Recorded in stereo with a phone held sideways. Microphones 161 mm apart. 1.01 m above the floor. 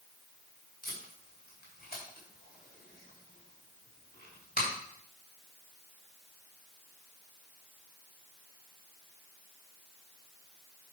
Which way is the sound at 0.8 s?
75° left (ahead or behind).